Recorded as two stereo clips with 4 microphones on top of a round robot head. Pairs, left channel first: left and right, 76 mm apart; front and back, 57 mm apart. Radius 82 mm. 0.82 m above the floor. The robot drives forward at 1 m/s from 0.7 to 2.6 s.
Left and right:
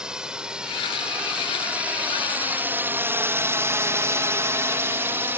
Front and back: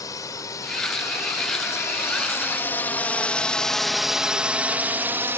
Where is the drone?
10° right; by 5.4 s 145° right.